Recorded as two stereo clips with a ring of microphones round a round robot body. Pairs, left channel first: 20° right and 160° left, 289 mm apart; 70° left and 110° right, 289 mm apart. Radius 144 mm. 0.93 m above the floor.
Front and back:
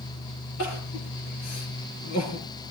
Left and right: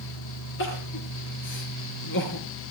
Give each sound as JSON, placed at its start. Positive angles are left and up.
{"t": 0.6, "sound": "crying", "azimuth_deg": 15, "distance_m": 6.0}